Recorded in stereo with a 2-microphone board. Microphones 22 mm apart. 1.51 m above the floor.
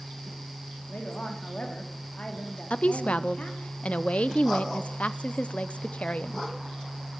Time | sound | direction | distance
0.9 | a woman speaking | 80° left | 2.5 m
2.7 | a woman speaking | 75° left (ahead or behind) | 0.5 m